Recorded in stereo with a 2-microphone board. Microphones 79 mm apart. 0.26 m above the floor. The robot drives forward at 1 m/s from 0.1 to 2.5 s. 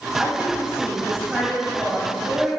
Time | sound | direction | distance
0.2 | a woman speaking | 10° right (ahead or behind) | 1.2 m